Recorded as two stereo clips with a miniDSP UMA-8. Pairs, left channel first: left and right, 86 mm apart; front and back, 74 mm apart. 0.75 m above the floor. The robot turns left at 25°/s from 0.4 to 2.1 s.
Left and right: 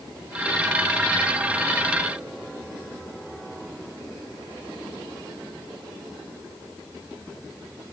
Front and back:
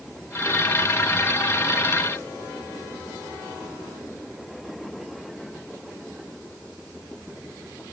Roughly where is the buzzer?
I don't hear a buzzer.